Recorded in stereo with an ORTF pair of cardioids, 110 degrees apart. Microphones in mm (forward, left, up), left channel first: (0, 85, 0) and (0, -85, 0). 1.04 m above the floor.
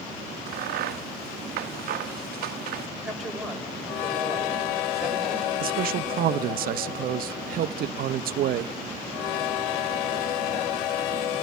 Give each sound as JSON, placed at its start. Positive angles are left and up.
{"t": 0.5, "sound": "a crack", "azimuth_deg": -65, "distance_m": 0.9}
{"t": 3.0, "sound": "a woman speaking", "azimuth_deg": 0, "distance_m": 4.5}
{"t": 5.6, "sound": "a man speaking", "azimuth_deg": -60, "distance_m": 0.7}